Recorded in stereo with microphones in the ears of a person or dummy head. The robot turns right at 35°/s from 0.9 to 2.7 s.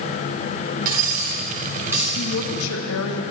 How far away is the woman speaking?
About 1.6 m.